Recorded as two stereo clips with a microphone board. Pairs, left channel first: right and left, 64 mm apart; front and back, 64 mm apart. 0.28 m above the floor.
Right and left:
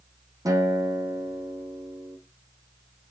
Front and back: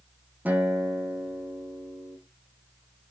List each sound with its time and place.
0.5 s a guitar: 115° left, 4 m